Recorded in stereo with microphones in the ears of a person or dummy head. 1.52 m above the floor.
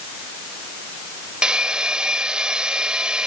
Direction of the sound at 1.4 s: 5° right (ahead or behind).